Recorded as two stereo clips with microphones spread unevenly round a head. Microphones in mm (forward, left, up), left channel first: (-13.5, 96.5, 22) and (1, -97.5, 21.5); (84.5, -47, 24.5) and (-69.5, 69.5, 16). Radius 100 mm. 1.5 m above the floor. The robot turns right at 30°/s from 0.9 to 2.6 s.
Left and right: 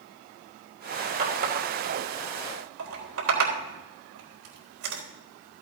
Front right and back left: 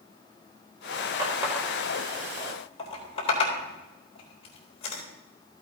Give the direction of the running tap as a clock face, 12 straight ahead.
5 o'clock.